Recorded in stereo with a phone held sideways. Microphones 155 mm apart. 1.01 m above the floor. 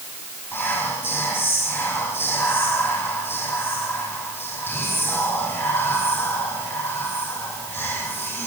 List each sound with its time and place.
0.5 s whispering: 15° left (ahead or behind), 6.5 m